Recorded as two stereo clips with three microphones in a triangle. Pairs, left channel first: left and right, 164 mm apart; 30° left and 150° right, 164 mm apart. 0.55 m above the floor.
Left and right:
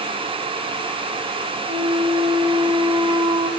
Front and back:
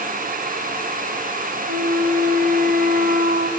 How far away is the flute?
About 3 m.